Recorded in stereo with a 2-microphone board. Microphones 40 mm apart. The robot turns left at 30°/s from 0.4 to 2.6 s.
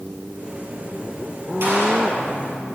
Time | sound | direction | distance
1.6 | a gunshot | 65° right (ahead or behind) | 4.5 m